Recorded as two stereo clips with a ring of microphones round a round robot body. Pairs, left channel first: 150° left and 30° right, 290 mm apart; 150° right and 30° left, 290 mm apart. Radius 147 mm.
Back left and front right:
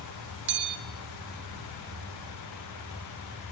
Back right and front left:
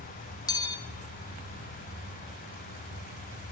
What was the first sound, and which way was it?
A bell, 75° right.